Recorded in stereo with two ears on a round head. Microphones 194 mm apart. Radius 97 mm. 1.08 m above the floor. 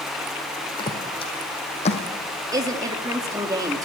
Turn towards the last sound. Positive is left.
turn(degrees=-15)  # may be behind; listen again after turning